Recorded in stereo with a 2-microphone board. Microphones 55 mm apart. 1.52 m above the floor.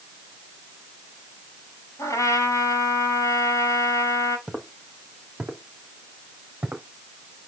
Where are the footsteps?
10° right (ahead or behind), 3 m; by 6.8 s 30° right (ahead or behind), 4 m.